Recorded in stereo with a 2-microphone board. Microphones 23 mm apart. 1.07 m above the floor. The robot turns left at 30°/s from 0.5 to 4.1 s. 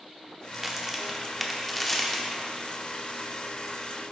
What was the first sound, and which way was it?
A crack, 20° right (ahead or behind).